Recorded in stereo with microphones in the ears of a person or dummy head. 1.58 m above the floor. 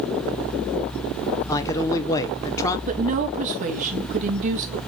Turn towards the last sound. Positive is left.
turn(degrees=-40)  # may be behind; listen again after turning